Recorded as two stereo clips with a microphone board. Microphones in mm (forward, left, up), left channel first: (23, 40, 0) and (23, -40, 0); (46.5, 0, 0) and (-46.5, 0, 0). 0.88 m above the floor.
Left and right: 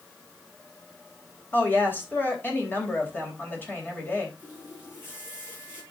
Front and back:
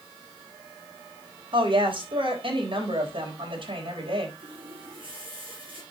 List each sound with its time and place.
1.5 s a woman speaking: 155° left, 3.5 m
4.4 s a running tap: 150° left, 7 m